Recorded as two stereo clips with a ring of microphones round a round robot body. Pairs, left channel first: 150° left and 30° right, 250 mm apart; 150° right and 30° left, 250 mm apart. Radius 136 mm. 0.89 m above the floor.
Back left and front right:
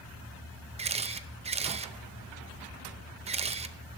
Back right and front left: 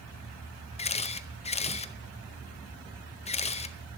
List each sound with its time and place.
0.8 s a camera shutter: 90° right, 0.6 m